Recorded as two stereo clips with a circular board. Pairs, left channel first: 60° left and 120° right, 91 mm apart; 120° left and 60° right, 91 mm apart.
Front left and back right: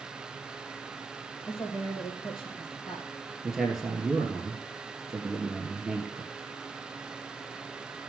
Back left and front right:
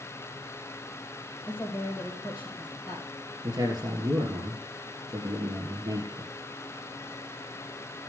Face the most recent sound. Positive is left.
turn(degrees=-35)